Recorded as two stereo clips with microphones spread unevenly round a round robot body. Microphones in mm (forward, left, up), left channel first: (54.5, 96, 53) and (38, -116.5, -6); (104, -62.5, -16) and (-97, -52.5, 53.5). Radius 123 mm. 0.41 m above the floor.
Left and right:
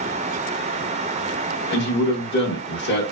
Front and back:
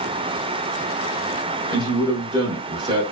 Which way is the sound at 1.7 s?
95° left.